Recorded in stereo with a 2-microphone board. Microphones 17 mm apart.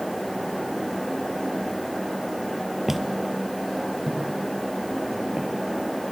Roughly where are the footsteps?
Centre.